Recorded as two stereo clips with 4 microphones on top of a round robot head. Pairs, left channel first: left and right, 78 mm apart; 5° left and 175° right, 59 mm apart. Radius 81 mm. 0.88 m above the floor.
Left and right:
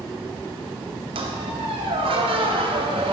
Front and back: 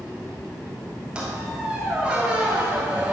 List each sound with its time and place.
1.1 s a squeak: 95° right, 1.3 m